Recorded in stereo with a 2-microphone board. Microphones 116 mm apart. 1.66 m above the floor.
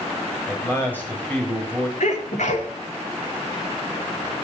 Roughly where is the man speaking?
Centre.